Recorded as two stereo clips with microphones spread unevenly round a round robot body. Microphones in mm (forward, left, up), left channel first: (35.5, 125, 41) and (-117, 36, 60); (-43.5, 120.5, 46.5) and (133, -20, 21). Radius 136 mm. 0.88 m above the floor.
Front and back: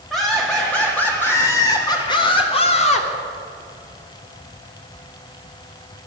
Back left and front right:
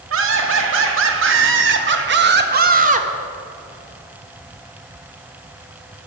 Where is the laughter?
55° right, 2.5 m; by 3.1 s 5° left, 1.4 m.